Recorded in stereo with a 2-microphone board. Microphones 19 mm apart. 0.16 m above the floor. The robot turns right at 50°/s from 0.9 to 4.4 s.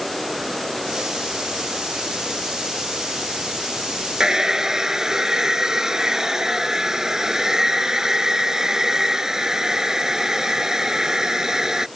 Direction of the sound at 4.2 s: 40° right (ahead or behind).